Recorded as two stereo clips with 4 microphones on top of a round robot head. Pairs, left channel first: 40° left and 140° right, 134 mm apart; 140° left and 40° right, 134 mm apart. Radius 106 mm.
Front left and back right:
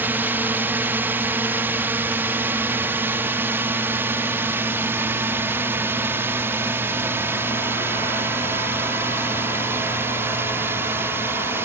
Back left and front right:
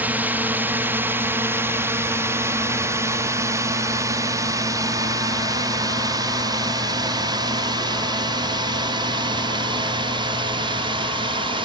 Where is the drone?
95° right; by 11.7 s 75° right.